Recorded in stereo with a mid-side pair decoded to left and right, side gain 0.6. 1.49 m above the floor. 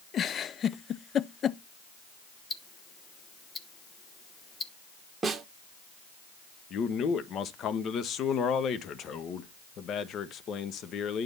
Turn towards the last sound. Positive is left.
turn(degrees=50)